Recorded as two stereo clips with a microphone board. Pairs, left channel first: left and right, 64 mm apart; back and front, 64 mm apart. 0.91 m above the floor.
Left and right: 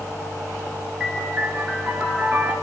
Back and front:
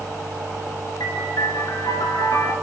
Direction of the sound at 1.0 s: 165° right.